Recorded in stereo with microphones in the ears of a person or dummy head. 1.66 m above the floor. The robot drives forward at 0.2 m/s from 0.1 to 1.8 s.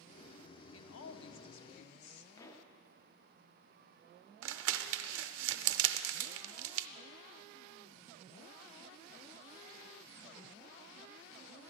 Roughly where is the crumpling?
Right.